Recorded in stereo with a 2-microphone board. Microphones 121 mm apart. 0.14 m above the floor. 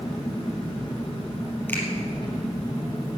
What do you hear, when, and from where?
0.0 s an engine running: 35° left (ahead or behind), 3.5 m
1.7 s a finger snap: 15° left (ahead or behind), 3.5 m